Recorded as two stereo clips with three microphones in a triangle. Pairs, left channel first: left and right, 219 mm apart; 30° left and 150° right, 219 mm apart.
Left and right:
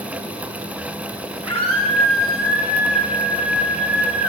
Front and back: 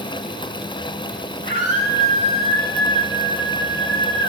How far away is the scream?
About 9.5 m.